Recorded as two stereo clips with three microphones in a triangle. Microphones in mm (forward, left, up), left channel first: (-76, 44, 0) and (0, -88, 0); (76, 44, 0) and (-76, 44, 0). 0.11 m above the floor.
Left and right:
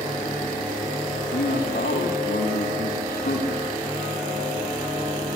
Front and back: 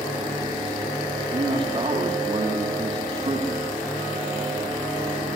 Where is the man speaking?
125° left, 9.5 m.